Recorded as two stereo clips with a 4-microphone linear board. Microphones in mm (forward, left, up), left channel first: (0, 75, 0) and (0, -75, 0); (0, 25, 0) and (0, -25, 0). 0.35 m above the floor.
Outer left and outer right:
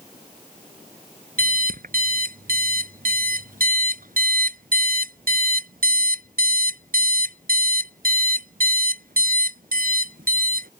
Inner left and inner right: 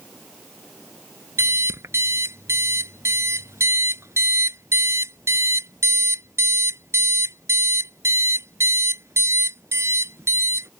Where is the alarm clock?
70° right (ahead or behind).